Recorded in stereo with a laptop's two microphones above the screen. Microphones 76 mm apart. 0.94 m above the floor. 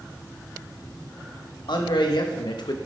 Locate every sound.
1.7 s a man speaking: 75° left (ahead or behind), 1.2 m; by 2.8 s 65° left (ahead or behind), 0.7 m